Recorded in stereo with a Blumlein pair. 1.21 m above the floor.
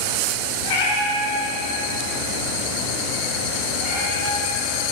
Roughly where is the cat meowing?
Ahead left.